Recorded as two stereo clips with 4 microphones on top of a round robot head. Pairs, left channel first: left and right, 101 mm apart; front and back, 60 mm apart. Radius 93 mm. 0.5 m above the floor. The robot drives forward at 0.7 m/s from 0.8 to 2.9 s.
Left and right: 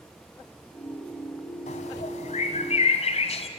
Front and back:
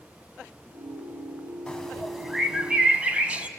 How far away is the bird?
About 1.5 m.